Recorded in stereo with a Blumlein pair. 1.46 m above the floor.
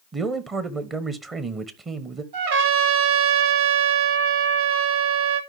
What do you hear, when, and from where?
0.1 s a man speaking: 20° right, 1.0 m
2.3 s a trumpet: 55° right, 1.8 m